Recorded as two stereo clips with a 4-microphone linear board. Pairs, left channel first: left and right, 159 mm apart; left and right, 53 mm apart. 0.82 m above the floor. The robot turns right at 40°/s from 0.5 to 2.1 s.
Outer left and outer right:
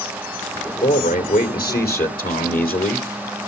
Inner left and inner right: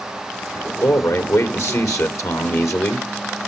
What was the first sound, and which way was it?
A man speaking, 55° left.